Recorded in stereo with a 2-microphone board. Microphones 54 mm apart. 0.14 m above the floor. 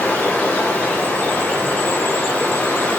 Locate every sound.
0.0 s running water: 35° left (ahead or behind), 8.5 m